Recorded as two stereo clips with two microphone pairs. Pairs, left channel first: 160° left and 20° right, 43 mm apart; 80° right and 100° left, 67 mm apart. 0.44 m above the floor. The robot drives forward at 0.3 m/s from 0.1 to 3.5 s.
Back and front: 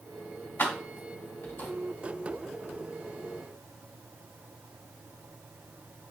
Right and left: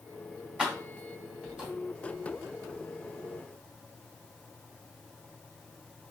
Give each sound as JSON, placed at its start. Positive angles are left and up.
{"t": 0.6, "sound": "keys jangling", "azimuth_deg": 170, "distance_m": 1.8}